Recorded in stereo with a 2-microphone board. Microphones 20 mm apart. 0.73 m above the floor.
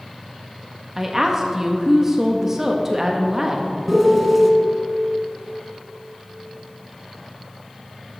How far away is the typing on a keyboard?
No typing on a keyboard in this recording.